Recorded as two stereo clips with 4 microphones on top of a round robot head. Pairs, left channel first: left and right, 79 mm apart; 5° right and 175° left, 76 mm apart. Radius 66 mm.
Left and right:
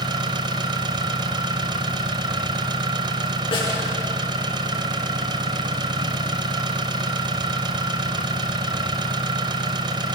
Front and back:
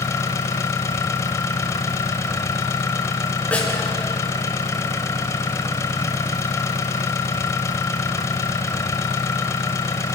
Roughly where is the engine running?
Ahead right.